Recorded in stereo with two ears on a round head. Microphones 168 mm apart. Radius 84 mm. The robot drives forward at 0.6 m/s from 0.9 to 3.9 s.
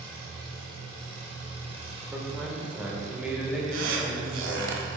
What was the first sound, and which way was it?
An engine running, 25° right (ahead or behind).